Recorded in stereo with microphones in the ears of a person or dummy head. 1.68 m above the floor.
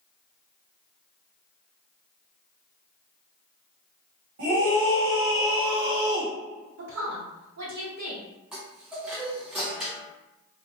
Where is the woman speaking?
70° right (ahead or behind), 1.1 m.